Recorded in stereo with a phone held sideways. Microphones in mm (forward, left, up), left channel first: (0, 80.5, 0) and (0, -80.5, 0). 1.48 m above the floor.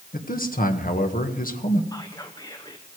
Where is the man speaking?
60° left (ahead or behind), 1.6 m.